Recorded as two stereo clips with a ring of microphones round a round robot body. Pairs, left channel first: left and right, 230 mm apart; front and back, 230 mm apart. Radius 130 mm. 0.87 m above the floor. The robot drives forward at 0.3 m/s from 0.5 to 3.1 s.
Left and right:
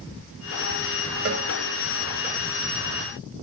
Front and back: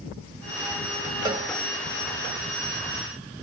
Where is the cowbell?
110° right, 0.9 m; by 1.5 s 115° right, 1.0 m.